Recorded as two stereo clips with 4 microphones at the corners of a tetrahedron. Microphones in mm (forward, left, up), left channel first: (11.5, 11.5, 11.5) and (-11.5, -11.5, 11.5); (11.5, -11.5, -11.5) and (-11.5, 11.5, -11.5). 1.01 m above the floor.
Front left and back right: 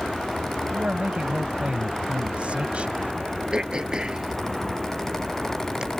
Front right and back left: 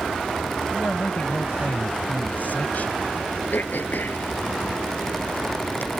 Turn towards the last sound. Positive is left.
turn(degrees=-65)